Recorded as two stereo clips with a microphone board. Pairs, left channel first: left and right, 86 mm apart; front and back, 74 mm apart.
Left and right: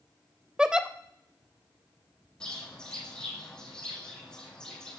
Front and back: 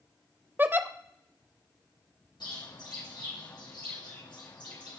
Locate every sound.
0.6 s a giggle: 160° right, 0.6 m
2.4 s a bird: 10° left, 3 m